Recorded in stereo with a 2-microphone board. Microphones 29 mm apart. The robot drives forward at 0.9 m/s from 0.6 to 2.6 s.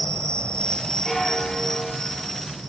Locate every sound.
0.0 s an insect: 35° left (ahead or behind), 0.7 m; by 2.7 s 10° left (ahead or behind), 2.5 m
1.1 s a bell: 10° left (ahead or behind), 9 m; by 2.3 s 15° left (ahead or behind), 8 m